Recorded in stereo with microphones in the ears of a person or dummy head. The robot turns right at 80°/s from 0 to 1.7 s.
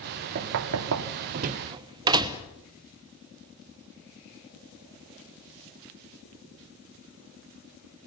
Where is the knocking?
50° right (ahead or behind), 1.0 m; by 2.5 s 25° right (ahead or behind), 1.0 m.